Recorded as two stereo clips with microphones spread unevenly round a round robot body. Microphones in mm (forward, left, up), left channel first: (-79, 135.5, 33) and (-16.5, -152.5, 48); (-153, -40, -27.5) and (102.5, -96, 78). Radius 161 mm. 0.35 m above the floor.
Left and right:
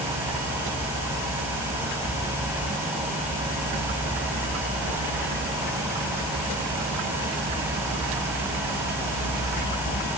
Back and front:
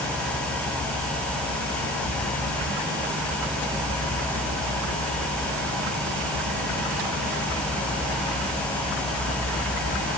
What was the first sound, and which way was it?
Only background noise.